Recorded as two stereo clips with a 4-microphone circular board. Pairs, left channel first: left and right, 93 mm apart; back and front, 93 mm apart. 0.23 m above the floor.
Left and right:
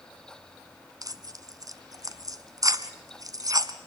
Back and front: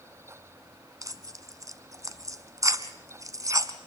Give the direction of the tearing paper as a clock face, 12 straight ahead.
2 o'clock.